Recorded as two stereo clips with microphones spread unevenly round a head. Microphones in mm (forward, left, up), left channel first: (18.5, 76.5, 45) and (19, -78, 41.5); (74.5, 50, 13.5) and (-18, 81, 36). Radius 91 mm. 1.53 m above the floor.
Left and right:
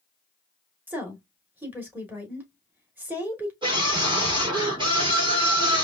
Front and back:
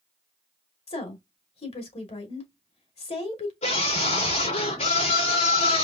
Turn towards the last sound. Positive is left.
turn(degrees=-30)